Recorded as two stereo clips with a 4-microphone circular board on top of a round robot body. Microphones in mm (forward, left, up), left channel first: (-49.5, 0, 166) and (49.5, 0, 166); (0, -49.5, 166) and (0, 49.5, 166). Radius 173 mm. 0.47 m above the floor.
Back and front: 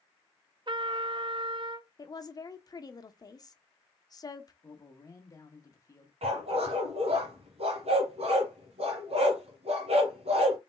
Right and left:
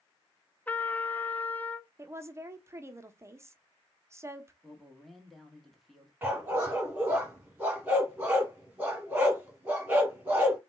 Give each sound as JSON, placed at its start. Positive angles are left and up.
{"t": 0.7, "sound": "a trumpet", "azimuth_deg": -20, "distance_m": 0.6}
{"t": 2.0, "sound": "a woman speaking", "azimuth_deg": 145, "distance_m": 0.9}
{"t": 4.6, "sound": "a man speaking", "azimuth_deg": 180, "distance_m": 1.5}
{"t": 6.2, "sound": "a dog barking", "azimuth_deg": 15, "distance_m": 1.5}